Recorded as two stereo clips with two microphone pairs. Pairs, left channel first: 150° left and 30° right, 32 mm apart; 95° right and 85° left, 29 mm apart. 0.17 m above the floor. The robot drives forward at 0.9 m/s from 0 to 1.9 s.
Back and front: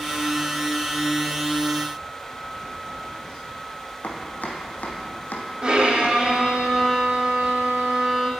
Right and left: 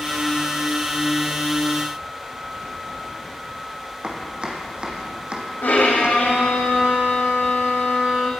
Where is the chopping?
140° left, 2.0 m.